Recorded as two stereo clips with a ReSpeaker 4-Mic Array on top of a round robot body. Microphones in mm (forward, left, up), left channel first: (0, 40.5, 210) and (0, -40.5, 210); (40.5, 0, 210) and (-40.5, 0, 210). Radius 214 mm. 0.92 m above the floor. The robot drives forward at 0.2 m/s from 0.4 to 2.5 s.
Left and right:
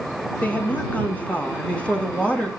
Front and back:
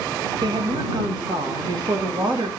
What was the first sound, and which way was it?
A woman speaking, 160° left.